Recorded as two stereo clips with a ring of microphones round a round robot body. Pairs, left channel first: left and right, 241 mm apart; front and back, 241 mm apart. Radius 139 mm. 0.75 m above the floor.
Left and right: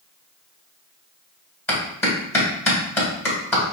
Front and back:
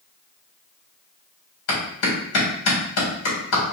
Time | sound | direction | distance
1.7 | a clap | 10° left | 2.5 m